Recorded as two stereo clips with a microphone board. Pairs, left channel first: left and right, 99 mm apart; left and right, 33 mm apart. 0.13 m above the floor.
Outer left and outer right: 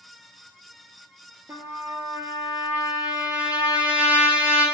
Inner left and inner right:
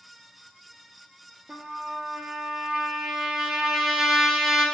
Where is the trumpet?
20° right (ahead or behind), 0.5 m.